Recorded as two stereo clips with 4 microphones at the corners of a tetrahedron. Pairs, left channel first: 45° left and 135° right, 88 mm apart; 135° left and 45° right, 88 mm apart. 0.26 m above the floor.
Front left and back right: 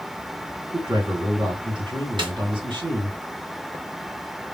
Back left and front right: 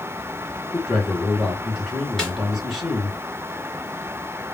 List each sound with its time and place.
0.7 s a man speaking: 135° right, 3 m
2.2 s a snare drum: 140° right, 2.5 m